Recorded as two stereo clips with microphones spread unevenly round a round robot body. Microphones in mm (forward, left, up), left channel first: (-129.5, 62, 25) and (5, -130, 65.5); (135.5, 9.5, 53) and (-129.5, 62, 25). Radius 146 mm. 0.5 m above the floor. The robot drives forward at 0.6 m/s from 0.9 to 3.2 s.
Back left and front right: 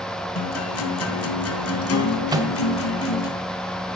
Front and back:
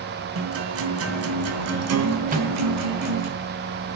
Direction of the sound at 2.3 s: 130° right.